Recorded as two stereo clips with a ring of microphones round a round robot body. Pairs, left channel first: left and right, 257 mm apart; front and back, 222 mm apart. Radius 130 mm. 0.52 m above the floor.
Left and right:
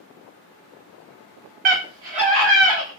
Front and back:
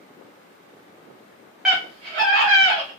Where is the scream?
95° right, 0.8 m; by 2.9 s 160° left, 1.2 m.